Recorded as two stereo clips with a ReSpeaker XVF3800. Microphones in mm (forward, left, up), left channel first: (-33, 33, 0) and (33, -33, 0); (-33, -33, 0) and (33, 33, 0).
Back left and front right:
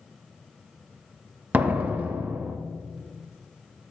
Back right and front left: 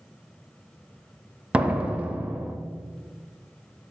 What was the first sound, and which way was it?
A door slam, 5° right.